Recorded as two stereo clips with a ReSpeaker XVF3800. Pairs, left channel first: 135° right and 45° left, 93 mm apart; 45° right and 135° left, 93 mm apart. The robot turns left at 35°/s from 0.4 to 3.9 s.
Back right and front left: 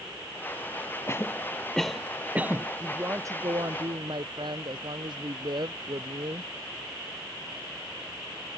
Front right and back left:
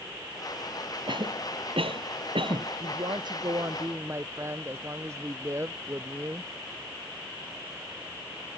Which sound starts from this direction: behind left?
A woman speaking, at 2.8 s.